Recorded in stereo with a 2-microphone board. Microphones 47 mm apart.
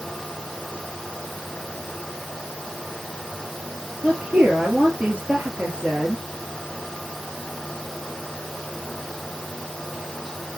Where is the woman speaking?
35° right (ahead or behind), 2.5 m.